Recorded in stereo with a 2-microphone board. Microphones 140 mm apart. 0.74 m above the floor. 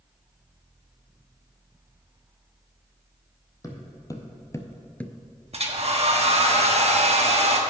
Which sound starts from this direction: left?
Footsteps, at 3.6 s.